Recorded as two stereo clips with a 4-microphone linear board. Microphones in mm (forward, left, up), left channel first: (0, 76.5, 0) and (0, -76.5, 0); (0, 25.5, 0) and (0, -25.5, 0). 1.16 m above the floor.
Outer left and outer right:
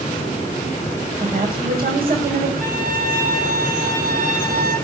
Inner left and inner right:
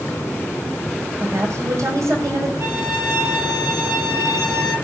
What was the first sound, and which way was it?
A woman speaking, 75° right (ahead or behind).